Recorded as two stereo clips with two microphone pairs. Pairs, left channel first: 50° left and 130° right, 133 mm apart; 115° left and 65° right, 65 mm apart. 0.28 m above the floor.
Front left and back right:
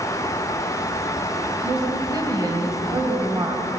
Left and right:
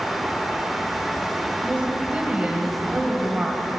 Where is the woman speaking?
115° right, 1.6 m.